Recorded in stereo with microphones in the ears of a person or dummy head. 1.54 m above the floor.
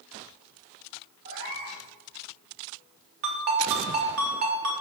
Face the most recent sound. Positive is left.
turn(degrees=-40)  # may be behind; listen again after turning